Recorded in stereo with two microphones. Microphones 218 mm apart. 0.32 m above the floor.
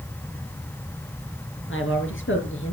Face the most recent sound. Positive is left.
turn(degrees=65)  # may be behind; listen again after turning